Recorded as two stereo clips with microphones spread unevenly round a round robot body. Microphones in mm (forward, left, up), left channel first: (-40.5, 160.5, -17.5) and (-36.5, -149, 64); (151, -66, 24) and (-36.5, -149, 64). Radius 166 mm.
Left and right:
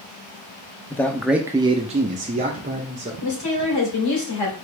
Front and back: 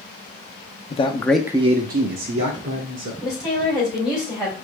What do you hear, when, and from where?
0.9 s a man speaking: 30° left, 0.6 m; by 3.1 s 160° right, 1.2 m
3.2 s a woman speaking: 100° left, 3 m